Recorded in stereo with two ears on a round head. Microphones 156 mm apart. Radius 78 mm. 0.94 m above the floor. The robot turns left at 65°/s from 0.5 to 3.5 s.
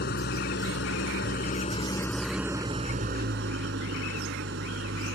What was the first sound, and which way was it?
An engine running, 115° left.